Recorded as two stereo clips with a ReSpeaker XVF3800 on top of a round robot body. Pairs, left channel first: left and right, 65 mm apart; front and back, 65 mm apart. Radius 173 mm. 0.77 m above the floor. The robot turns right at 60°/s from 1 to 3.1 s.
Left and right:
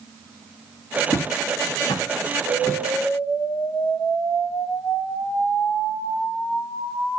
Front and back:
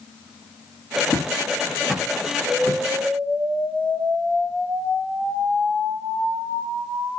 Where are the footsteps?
55° left, 5.5 m; by 2.8 s 140° left, 6.5 m.